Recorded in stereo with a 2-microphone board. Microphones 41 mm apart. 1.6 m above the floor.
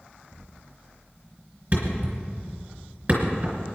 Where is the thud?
35° right (ahead or behind), 3.5 m.